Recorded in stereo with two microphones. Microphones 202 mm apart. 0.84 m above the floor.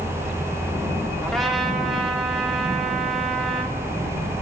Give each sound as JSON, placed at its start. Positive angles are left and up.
{"t": 1.2, "sound": "a trumpet", "side_deg": 0, "distance_m": 2.0}